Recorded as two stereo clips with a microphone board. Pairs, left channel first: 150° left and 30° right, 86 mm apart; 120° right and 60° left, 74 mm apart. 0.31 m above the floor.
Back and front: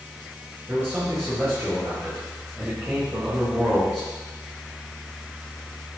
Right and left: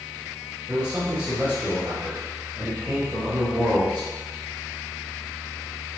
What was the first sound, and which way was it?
A man speaking, 15° left.